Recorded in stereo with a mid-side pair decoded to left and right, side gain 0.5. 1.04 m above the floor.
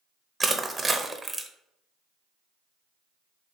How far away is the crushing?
About 0.7 m.